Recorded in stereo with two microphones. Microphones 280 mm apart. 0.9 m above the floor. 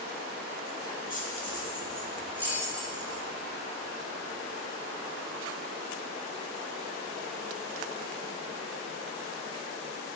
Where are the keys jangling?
30° left (ahead or behind), 1.4 m; by 3.2 s 15° right (ahead or behind), 2.5 m.